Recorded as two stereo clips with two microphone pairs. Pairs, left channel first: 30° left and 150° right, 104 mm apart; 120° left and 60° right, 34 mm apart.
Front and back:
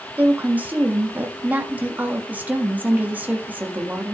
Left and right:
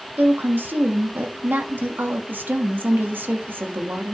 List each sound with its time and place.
0.2 s a woman speaking: 75° right, 1.6 m